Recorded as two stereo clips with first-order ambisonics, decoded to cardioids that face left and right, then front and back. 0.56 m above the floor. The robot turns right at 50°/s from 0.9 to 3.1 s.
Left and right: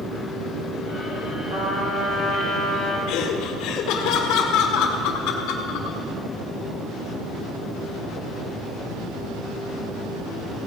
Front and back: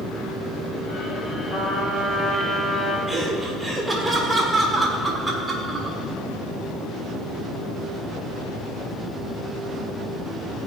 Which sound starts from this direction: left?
Laughter, at 3.1 s.